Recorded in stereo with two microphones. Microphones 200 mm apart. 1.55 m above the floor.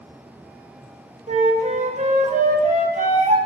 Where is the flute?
35° right (ahead or behind), 1.0 m.